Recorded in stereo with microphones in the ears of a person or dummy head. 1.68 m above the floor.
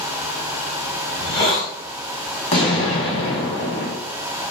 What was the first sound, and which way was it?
A hiss, 25° left (ahead or behind).